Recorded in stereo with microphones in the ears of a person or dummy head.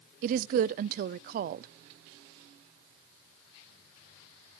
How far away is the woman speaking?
About 0.6 m.